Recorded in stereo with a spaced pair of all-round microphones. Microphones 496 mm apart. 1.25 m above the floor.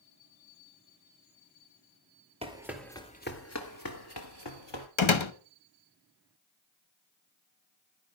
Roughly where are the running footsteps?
Centre.